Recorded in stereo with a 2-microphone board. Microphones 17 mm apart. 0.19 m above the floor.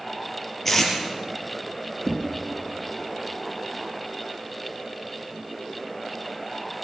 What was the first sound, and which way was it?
Tape being pulled, 10° left (ahead or behind).